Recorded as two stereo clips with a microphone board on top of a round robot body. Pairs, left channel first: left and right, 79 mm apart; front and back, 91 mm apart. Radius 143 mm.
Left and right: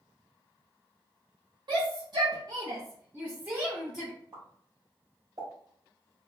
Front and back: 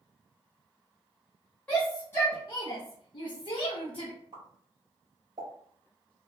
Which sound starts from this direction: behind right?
A pop, at 4.3 s.